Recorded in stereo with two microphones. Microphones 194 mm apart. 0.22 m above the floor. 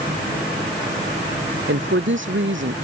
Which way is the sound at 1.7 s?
80° right.